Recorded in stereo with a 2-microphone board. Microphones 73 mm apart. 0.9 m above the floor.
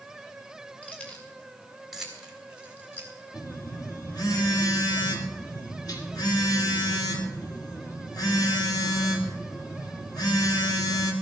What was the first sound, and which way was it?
Keys jangling, 20° left (ahead or behind).